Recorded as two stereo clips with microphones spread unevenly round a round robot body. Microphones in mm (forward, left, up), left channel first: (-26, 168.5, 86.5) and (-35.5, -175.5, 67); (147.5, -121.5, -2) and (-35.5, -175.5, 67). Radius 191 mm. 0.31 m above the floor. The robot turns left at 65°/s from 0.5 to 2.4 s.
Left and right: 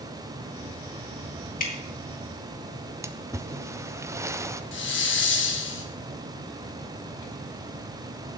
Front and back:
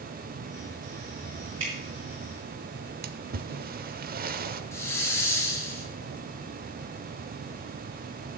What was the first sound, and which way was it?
Dripping, 155° left.